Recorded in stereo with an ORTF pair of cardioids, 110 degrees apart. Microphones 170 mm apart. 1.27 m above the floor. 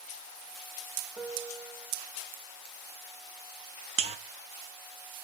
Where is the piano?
15° right, 1.7 m.